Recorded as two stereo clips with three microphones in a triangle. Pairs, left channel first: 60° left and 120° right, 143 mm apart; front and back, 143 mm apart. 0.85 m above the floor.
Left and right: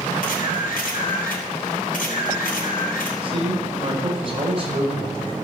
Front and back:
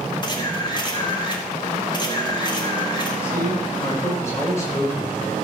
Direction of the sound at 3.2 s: 70° right.